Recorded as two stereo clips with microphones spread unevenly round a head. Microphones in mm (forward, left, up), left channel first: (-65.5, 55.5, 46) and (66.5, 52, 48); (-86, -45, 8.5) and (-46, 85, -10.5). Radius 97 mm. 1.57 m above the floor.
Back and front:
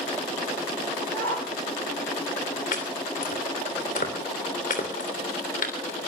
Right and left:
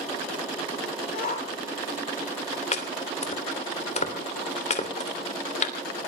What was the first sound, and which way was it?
A shout, 120° right.